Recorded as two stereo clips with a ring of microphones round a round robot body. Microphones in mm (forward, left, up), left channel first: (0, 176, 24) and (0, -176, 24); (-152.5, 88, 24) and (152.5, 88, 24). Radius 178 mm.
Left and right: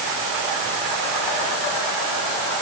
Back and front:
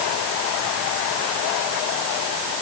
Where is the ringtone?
No ringtone in this recording.